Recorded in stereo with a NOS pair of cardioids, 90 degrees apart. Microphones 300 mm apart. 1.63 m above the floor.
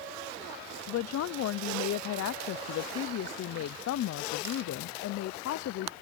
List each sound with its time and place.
0.9 s a woman speaking: 60° left